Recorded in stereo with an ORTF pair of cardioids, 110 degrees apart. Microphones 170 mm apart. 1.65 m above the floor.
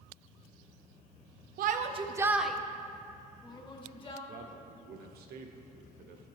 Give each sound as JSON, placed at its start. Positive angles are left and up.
{"t": 1.6, "sound": "a shout", "azimuth_deg": -60, "distance_m": 0.6}
{"t": 4.3, "sound": "a man speaking", "azimuth_deg": -65, "distance_m": 1.1}